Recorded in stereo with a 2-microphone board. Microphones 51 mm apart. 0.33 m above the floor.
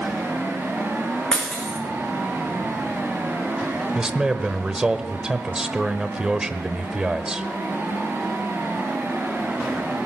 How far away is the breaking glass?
About 3.5 m.